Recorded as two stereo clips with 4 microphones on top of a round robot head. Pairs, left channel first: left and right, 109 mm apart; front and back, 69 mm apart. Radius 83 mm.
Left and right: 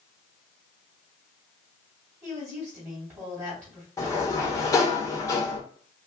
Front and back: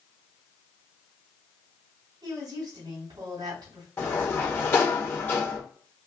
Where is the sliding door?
45° left, 1.6 m.